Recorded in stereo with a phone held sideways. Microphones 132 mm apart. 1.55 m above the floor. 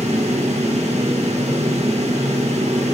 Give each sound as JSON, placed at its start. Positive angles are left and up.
{"t": 0.0, "sound": "a fan", "side_deg": -55, "distance_m": 1.6}